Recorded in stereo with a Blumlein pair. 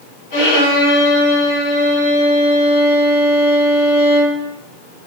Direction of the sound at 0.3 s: 50° left.